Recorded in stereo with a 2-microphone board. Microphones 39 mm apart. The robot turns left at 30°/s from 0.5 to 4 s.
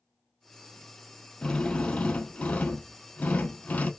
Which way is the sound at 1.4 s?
150° left.